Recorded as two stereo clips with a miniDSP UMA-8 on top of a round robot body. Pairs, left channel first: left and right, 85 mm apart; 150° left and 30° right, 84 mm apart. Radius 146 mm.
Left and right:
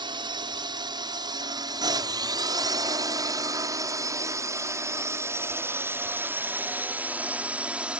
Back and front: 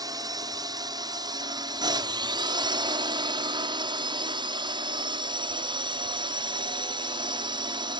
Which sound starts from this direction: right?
A drone, at 0.0 s.